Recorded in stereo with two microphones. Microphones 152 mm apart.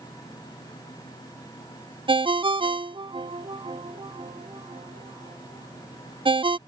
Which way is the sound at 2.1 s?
35° right (ahead or behind).